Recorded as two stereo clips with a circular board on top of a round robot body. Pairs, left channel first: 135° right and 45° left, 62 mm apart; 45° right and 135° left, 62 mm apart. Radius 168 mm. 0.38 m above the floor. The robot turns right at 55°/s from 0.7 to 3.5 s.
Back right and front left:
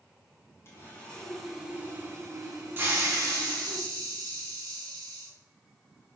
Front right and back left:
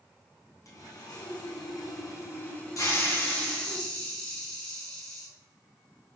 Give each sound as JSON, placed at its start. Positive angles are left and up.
{"t": 0.7, "sound": "sawing", "azimuth_deg": -85, "distance_m": 4.0}
{"t": 2.8, "sound": "a hiss", "azimuth_deg": -10, "distance_m": 5.0}